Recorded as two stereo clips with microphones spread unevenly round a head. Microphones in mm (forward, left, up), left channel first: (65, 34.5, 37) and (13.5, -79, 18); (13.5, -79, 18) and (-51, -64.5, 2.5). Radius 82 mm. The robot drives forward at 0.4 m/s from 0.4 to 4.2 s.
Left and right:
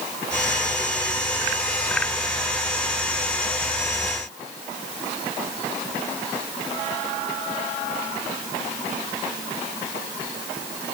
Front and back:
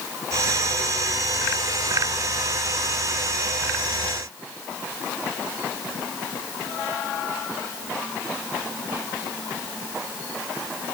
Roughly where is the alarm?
I don't hear an alarm.